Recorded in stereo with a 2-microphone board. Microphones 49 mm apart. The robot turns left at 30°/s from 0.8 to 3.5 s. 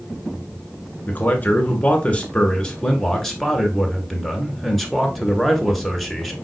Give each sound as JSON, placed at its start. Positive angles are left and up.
{"t": 1.1, "sound": "a man speaking", "azimuth_deg": 80, "distance_m": 1.4}